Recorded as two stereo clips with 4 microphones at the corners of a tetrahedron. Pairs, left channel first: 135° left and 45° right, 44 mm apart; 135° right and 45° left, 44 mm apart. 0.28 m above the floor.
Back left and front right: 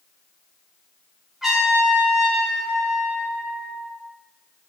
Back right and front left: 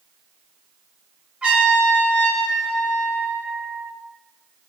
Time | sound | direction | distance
1.4 | a trumpet | 25° left | 1.5 m